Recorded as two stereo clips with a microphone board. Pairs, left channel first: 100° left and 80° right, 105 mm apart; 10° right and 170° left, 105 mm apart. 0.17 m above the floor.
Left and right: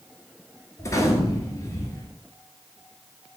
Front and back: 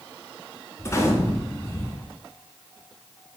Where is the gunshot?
45° left, 0.9 m.